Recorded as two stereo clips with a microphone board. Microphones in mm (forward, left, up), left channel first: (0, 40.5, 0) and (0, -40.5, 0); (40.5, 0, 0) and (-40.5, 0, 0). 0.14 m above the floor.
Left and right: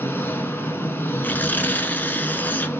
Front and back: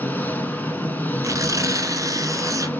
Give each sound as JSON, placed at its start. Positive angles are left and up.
{"t": 0.0, "sound": "an engine running", "azimuth_deg": 50, "distance_m": 0.9}
{"t": 1.2, "sound": "tearing paper", "azimuth_deg": 150, "distance_m": 0.7}